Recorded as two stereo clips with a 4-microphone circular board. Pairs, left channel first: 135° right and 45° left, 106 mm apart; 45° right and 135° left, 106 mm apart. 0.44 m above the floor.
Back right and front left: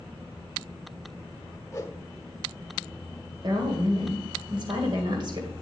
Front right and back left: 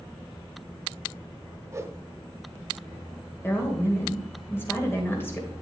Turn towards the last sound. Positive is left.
turn(degrees=15)